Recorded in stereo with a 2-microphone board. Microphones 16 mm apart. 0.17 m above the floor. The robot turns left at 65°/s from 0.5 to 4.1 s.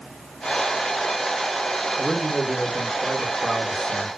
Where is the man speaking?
65° right, 1.9 m; by 4.1 s 155° left, 1.9 m.